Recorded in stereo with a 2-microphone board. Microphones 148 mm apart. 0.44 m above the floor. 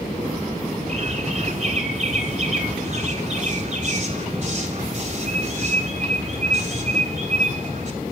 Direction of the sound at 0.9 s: 50° right (ahead or behind).